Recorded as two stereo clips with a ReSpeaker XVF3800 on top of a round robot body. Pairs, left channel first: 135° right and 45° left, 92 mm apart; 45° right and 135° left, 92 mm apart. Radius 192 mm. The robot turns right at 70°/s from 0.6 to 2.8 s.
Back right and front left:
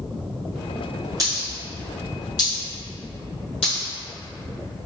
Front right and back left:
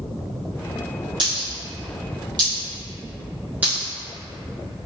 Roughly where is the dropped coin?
Left.